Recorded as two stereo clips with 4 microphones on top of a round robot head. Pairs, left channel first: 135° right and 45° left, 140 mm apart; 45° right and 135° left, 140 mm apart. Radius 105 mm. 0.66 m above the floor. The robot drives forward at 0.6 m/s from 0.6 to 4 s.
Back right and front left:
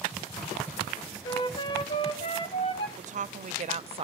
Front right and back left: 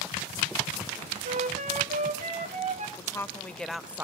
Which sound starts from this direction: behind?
A flute, at 1.2 s.